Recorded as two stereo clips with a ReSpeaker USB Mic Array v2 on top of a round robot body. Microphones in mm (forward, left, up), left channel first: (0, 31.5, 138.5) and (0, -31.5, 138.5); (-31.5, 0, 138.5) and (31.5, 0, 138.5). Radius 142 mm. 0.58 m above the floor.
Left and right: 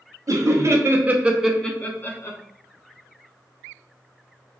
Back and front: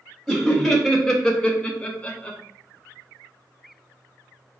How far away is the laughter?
About 0.8 m.